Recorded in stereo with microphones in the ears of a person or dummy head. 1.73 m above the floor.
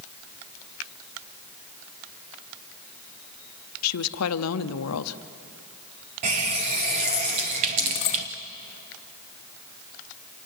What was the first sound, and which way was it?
A woman speaking, 90° left.